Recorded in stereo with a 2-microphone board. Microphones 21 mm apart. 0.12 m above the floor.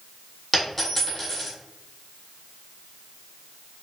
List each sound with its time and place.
0.5 s a dropped coin: 5° left (ahead or behind), 1.7 m